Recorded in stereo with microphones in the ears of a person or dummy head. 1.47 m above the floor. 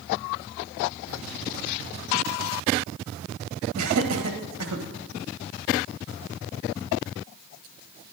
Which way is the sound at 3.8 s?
80° right.